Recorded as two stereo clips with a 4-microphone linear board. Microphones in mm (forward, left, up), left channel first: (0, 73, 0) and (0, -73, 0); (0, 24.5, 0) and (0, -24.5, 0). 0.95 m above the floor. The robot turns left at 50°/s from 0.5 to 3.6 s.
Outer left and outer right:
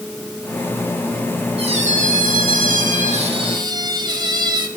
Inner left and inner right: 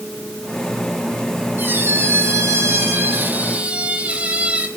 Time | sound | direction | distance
1.6 | a squeak | 45° right | 3 m